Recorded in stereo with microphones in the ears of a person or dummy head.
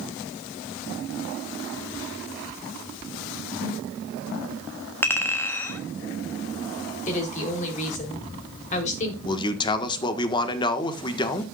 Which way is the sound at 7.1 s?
40° left (ahead or behind).